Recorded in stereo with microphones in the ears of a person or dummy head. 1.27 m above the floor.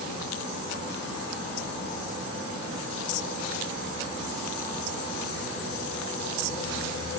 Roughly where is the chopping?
No chopping in this recording.